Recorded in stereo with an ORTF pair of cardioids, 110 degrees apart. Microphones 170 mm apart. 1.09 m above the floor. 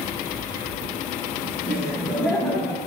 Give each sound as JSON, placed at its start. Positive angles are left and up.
{"t": 1.6, "sound": "laughter", "azimuth_deg": -5, "distance_m": 2.5}